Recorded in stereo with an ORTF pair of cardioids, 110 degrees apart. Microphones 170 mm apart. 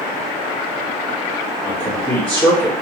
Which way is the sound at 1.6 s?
5° left.